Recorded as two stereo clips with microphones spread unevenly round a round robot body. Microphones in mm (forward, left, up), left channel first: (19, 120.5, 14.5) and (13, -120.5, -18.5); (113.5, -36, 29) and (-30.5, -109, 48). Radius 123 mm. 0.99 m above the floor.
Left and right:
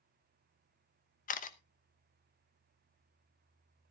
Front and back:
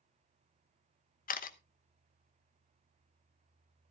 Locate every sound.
1.3 s a camera shutter: 30° left, 1.1 m